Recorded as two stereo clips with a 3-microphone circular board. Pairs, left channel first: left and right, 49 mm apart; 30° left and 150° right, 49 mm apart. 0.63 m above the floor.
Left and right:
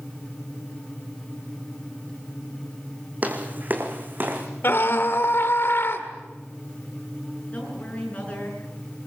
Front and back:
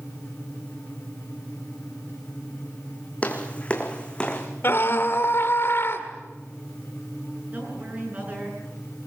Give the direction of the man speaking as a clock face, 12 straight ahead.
7 o'clock.